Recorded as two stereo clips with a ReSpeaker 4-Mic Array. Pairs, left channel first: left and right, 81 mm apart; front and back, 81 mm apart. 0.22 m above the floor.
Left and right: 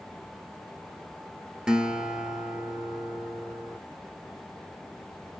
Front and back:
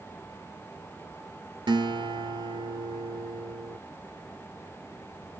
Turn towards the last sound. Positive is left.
turn(degrees=-170)